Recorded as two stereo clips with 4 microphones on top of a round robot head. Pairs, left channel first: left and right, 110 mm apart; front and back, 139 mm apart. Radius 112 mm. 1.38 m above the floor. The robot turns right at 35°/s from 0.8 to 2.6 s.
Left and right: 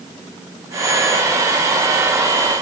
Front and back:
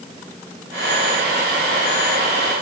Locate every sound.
Only background noise.